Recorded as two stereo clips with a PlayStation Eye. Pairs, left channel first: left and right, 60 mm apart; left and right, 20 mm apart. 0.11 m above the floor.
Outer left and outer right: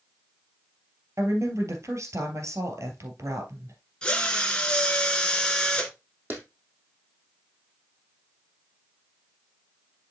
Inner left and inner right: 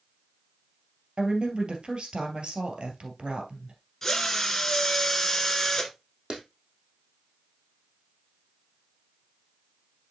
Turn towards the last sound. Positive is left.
turn(degrees=-35)  # may be behind; listen again after turning